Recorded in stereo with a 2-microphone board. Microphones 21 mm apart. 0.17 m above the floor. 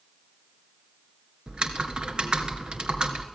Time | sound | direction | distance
1.5 | typing on a keyboard | 45° right (ahead or behind) | 2.0 m